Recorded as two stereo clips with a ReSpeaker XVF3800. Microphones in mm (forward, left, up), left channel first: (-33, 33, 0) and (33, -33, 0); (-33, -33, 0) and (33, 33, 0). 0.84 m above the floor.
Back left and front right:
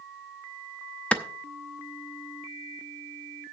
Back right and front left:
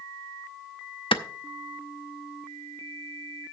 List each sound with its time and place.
1.1 s a clap: 150° right, 0.7 m